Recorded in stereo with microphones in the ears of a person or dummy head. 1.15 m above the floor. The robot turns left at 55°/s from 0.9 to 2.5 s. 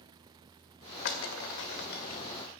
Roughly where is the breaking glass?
Left.